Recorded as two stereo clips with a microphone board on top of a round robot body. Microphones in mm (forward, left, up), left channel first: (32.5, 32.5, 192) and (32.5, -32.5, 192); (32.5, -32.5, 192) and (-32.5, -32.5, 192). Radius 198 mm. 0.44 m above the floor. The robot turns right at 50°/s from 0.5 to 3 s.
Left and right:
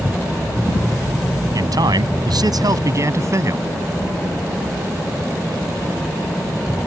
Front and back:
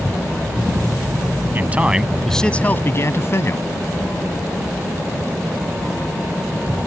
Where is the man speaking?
120° right; by 3.6 s 50° right.